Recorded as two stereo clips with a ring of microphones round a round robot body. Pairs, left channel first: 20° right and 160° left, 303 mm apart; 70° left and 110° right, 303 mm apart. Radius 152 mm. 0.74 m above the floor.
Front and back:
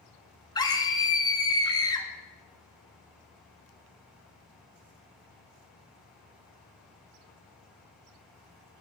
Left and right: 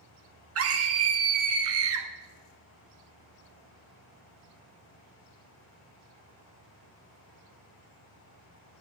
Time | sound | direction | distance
0.6 | a scream | 95° right | 1.5 m